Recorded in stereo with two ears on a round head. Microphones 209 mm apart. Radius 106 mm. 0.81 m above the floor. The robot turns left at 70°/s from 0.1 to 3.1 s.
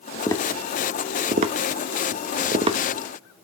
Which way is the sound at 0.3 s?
15° left (ahead or behind).